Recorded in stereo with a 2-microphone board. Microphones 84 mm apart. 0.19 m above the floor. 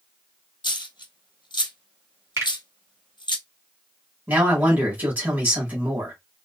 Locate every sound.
0.6 s a dropped coin: 75° left (ahead or behind), 0.8 m
2.4 s a finger snap: 40° right (ahead or behind), 1.9 m
4.3 s a man speaking: 25° right (ahead or behind), 1.6 m